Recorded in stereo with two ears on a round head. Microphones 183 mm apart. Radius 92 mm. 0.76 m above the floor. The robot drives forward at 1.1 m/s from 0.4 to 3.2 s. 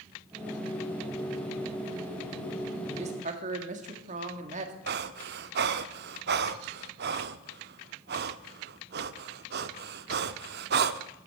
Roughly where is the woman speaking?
Right.